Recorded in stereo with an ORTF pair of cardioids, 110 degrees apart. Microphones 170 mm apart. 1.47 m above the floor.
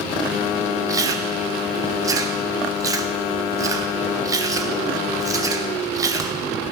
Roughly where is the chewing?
Ahead.